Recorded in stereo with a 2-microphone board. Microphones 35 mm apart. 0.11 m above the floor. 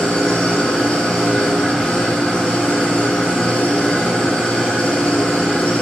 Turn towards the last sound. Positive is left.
turn(degrees=30)  # may be behind; listen again after turning